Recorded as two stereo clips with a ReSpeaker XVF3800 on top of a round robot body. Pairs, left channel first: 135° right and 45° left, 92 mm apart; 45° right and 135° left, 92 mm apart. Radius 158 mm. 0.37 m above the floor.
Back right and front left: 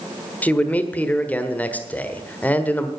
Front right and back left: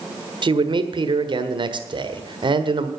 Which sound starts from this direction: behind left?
A man speaking, at 0.4 s.